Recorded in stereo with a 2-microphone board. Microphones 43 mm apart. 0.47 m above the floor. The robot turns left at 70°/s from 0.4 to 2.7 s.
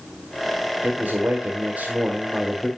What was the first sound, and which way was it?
A man speaking, 60° right.